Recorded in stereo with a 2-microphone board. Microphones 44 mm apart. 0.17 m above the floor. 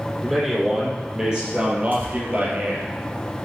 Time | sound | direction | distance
0.2 | a man speaking | 5° right (ahead or behind) | 5 m
1.9 | tearing paper | 45° right (ahead or behind) | 5.5 m